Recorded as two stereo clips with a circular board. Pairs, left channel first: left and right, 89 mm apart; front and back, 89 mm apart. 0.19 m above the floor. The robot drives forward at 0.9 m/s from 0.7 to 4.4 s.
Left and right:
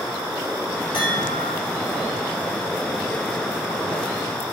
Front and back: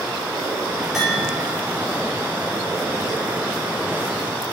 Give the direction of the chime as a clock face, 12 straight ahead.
9 o'clock.